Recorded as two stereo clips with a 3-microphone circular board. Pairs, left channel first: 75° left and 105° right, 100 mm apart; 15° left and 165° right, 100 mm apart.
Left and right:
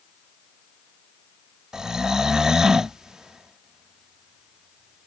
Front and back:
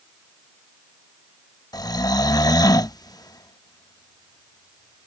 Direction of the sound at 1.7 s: 20° right.